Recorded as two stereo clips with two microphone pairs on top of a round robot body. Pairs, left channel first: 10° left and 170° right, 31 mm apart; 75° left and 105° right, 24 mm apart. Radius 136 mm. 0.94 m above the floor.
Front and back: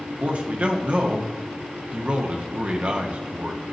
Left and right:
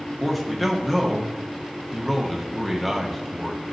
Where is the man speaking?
155° left, 1.6 m.